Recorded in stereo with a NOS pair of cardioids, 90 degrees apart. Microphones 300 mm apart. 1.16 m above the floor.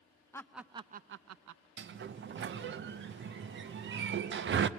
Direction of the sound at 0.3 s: 10° left.